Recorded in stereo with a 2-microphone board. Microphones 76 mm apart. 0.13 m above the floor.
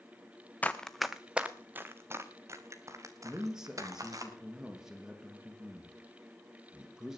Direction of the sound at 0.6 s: 20° left (ahead or behind).